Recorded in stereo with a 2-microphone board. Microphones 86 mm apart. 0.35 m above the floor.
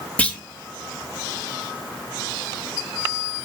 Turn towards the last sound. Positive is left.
turn(degrees=15)  # may be behind; listen again after turning